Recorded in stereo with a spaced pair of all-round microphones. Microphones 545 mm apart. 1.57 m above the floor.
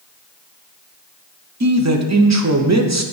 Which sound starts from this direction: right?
A man speaking, at 1.6 s.